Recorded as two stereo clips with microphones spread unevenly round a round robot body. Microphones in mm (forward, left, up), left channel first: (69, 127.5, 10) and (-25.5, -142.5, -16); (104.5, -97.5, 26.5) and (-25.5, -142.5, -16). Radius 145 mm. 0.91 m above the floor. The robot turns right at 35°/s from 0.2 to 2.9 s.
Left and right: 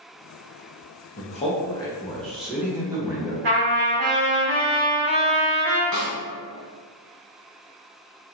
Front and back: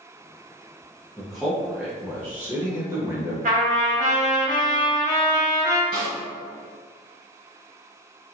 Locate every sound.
1.2 s a man speaking: 125° left, 0.6 m; by 3.3 s 175° right, 0.6 m
3.4 s a trumpet: 140° right, 1.7 m
5.9 s a snare drum: 155° left, 1.6 m